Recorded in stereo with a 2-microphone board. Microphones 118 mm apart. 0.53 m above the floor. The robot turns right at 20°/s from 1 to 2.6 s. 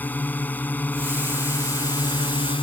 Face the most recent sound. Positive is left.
turn(degrees=50)